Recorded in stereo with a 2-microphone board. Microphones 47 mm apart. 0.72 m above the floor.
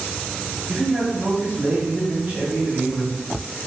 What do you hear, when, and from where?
0.7 s a man speaking: 40° right (ahead or behind), 1.6 m